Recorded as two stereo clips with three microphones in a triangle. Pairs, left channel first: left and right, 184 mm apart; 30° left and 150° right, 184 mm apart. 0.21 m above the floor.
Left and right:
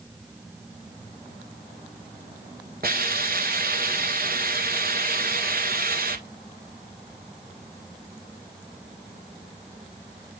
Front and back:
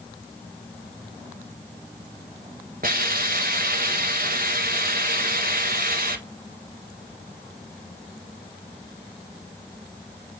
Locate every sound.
2.8 s a hiss: 115° right, 1.5 m